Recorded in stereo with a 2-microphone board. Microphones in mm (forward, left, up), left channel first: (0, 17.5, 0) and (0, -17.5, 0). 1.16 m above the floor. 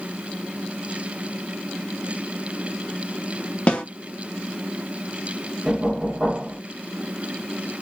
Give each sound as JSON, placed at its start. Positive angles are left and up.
{"t": 3.7, "sound": "a snare drum", "side_deg": 35, "distance_m": 0.8}
{"t": 5.7, "sound": "knocking", "side_deg": -20, "distance_m": 1.1}